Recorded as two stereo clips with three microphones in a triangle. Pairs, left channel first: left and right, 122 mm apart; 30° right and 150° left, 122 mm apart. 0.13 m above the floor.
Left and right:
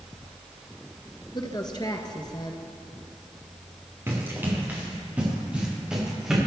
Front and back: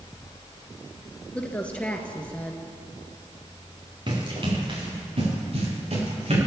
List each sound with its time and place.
1.3 s a woman speaking: 45° left, 1.8 m
4.1 s running footsteps: 160° right, 6.5 m; by 6.4 s 175° right, 8 m